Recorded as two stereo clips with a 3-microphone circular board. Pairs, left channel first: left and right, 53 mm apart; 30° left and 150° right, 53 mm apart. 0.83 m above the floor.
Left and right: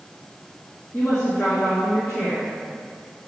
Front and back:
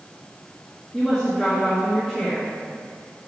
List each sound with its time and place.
0.9 s a woman speaking: 120° left, 1.5 m